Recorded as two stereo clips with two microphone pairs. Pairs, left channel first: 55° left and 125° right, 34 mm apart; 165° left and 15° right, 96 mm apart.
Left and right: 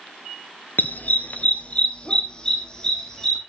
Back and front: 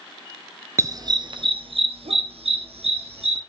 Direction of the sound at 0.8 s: 40° left.